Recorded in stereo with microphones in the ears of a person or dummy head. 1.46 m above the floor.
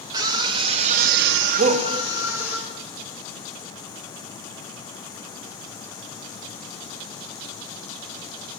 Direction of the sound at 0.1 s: 20° right (ahead or behind).